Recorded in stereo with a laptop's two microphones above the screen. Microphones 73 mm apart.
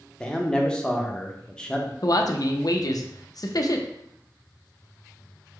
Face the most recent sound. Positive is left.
turn(degrees=60)  # may be behind; listen again after turning